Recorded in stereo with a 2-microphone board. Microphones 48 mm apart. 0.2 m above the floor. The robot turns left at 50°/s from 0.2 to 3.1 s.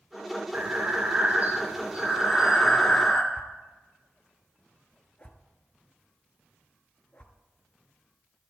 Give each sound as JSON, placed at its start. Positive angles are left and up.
{"t": 0.5, "sound": "breathing", "azimuth_deg": -70, "distance_m": 1.6}
{"t": 3.3, "sound": "a whoosh", "side_deg": 25, "distance_m": 1.1}